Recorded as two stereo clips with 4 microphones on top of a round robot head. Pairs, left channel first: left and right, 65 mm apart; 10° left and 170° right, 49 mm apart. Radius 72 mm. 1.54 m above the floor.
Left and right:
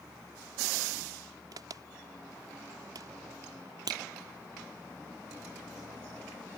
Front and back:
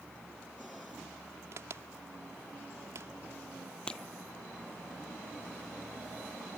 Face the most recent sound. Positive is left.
turn(degrees=-70)